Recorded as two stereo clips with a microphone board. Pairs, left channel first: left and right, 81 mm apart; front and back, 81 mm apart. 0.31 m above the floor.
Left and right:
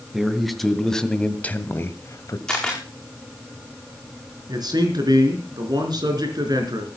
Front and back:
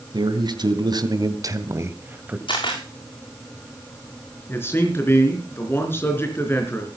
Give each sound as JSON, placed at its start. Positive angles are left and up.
{"t": 0.1, "sound": "a man speaking", "azimuth_deg": -175, "distance_m": 3.0}
{"t": 2.5, "sound": "a camera shutter", "azimuth_deg": 5, "distance_m": 6.5}
{"t": 4.5, "sound": "a man speaking", "azimuth_deg": -60, "distance_m": 4.0}